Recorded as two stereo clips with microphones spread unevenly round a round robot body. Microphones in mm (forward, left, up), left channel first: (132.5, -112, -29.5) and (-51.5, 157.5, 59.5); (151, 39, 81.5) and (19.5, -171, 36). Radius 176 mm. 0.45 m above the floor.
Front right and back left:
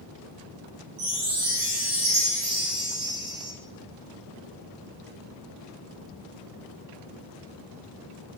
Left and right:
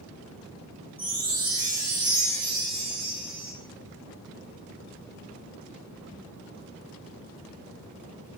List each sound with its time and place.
1.0 s a chime: 150° left, 1.0 m